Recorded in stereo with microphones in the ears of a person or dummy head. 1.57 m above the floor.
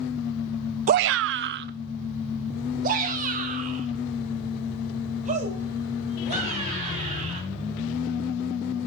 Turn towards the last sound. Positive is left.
turn(degrees=-40)  # may be behind; listen again after turning